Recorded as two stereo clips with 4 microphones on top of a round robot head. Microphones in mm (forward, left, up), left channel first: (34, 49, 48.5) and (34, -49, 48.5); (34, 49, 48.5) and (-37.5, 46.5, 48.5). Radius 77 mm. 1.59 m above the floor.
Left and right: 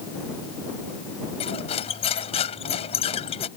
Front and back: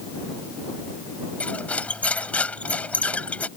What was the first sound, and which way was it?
Cutlery clinking, 70° left.